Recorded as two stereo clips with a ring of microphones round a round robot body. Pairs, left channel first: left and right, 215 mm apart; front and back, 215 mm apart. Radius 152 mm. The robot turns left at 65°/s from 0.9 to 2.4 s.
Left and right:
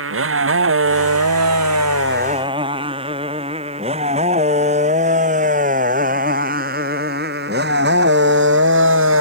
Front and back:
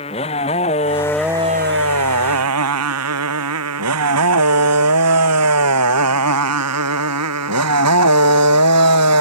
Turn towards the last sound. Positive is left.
turn(degrees=-145)